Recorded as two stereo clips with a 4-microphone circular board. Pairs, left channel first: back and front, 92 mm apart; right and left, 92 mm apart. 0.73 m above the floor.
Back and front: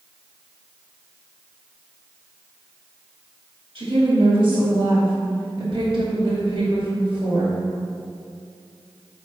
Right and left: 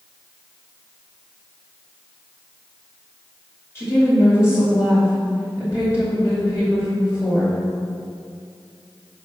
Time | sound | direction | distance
3.8 | a woman speaking | 30° right | 2 m